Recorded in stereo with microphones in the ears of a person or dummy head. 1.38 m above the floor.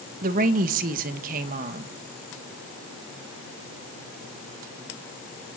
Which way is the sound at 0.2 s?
50° right (ahead or behind).